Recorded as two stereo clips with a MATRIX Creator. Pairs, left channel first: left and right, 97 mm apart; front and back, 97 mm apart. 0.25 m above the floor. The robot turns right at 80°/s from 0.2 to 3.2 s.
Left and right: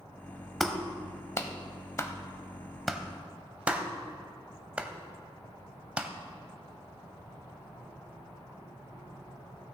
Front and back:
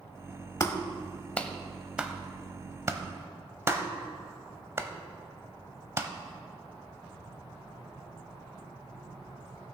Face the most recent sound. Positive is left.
turn(degrees=-155)